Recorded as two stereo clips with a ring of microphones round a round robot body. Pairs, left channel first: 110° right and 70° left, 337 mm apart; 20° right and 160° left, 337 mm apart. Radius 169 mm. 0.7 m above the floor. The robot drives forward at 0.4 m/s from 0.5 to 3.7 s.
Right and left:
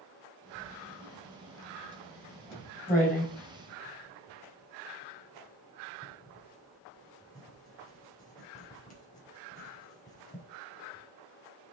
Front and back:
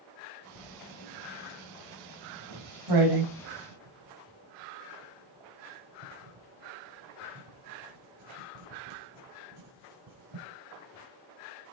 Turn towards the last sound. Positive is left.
turn(degrees=180)